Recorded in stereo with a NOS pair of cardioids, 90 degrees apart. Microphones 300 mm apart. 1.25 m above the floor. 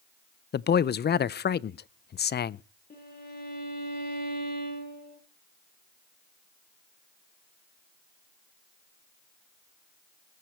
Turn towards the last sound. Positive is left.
turn(degrees=30)